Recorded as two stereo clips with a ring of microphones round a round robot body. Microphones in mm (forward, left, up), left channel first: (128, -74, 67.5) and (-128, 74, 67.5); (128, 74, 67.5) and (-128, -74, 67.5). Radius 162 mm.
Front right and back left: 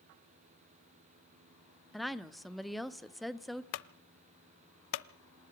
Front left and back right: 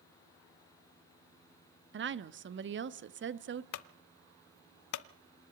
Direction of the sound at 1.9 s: 120° right.